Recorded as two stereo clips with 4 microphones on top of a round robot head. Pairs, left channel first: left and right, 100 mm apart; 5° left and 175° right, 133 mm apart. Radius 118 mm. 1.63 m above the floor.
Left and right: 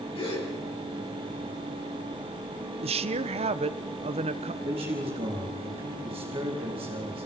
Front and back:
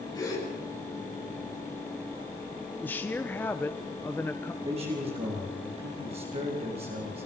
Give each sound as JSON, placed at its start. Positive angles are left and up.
{"t": 0.1, "sound": "a gasp", "azimuth_deg": 65, "distance_m": 8.5}
{"t": 2.8, "sound": "a woman speaking", "azimuth_deg": -75, "distance_m": 1.0}
{"t": 4.6, "sound": "a man speaking", "azimuth_deg": -130, "distance_m": 4.5}